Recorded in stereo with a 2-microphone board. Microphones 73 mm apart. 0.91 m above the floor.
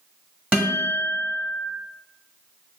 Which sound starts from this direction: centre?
A guitar, at 0.5 s.